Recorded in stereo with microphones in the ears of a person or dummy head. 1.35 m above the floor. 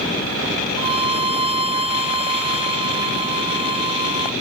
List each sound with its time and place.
0.8 s a violin: 35° right (ahead or behind)